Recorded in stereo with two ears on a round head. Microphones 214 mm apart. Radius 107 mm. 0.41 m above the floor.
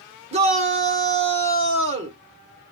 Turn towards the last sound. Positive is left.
turn(degrees=-25)  # may be behind; listen again after turning